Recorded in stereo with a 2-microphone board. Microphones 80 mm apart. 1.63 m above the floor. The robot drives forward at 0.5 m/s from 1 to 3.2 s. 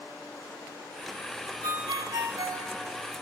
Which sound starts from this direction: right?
A ringtone, at 1.6 s.